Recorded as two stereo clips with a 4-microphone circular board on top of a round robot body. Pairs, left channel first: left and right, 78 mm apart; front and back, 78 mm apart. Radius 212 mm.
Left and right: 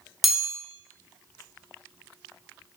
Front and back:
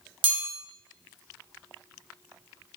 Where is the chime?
175° right, 2 m.